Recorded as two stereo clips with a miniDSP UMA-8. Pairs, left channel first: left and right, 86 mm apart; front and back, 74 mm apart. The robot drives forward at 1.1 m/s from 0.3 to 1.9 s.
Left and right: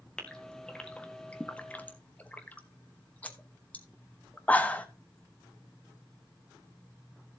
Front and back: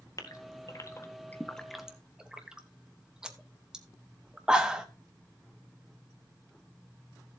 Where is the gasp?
10° left, 1.9 m; by 4.9 s 125° left, 1.1 m.